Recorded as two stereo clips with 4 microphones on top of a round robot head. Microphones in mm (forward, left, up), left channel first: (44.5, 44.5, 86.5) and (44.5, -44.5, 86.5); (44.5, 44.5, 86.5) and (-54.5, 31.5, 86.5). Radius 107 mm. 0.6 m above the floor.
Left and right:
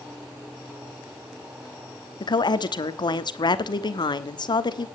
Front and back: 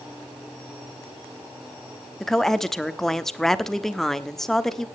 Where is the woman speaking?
90° left, 1.3 m.